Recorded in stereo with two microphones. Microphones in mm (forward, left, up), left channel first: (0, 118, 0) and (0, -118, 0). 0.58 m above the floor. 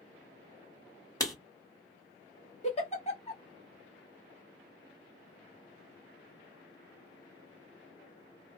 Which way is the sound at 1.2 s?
15° left (ahead or behind).